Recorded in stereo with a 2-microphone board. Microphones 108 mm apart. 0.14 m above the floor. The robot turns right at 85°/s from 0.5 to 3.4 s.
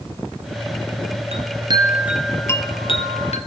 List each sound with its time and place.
1.3 s a chime: 75° right, 1.1 m; by 3.4 s 100° left, 1.1 m